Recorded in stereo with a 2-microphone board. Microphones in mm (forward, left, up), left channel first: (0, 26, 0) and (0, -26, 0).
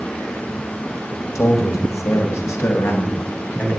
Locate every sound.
1.4 s a man speaking: 70° left (ahead or behind), 2.5 m; by 3.8 s 40° left (ahead or behind), 3.5 m